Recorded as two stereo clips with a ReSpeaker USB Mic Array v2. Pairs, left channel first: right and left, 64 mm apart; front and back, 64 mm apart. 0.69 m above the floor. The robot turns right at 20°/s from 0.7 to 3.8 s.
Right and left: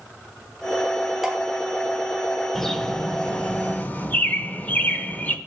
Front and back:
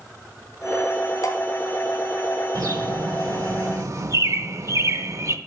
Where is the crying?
No crying in this recording.